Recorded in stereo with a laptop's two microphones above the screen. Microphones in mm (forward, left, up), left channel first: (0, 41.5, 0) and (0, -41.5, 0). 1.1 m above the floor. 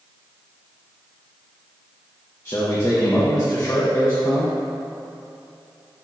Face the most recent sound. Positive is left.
turn(degrees=35)  # may be behind; listen again after turning